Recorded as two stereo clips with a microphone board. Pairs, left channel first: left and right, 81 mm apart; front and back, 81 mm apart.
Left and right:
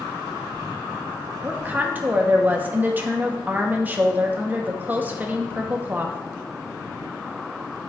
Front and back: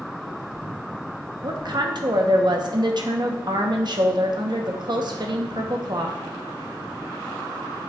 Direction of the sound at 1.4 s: 155° right.